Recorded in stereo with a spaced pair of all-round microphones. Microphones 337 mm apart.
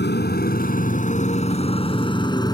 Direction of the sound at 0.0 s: 30° left (ahead or behind).